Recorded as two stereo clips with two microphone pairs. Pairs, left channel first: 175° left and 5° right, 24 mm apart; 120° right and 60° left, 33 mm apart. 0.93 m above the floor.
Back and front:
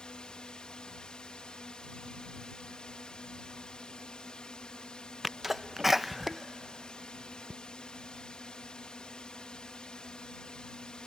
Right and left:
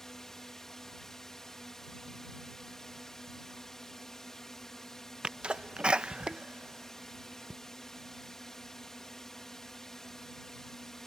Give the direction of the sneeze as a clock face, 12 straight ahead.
10 o'clock.